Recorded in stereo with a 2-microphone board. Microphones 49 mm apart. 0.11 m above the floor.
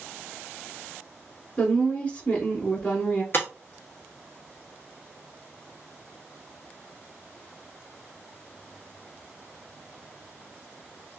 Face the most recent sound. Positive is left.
turn(degrees=50)  # may be behind; listen again after turning